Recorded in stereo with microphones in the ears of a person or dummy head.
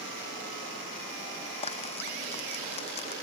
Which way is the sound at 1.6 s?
30° left (ahead or behind).